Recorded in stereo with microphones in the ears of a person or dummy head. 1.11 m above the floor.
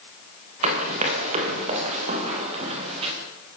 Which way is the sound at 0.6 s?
40° right (ahead or behind).